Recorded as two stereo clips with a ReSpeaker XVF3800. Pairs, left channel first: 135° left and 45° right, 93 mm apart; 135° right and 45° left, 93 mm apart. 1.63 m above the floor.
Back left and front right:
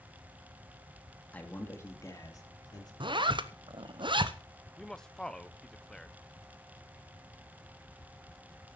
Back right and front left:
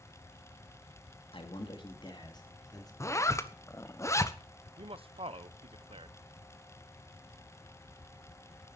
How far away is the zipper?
About 0.9 m.